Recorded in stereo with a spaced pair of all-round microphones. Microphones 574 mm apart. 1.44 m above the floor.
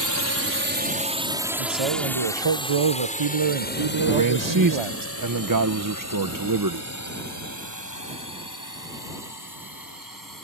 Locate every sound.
0.0 s a drone: 35° right (ahead or behind); by 10.4 s 35° left (ahead or behind)
1.6 s a man speaking: 55° right (ahead or behind)
4.1 s a man speaking: 35° right (ahead or behind)